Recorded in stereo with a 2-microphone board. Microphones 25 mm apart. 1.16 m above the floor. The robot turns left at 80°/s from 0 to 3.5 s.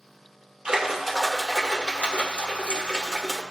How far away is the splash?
About 1.3 m.